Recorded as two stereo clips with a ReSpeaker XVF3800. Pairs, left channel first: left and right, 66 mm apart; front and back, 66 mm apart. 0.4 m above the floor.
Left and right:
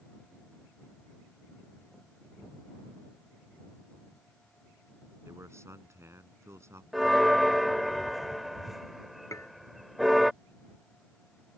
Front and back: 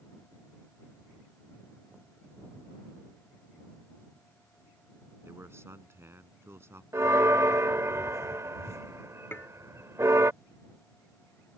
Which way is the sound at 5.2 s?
135° right.